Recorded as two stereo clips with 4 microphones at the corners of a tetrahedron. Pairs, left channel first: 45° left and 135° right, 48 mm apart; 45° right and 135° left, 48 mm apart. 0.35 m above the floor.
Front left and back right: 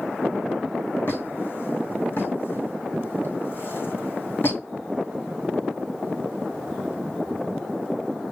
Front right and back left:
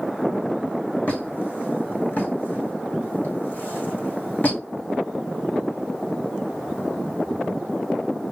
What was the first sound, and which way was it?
A squeak, 5° left.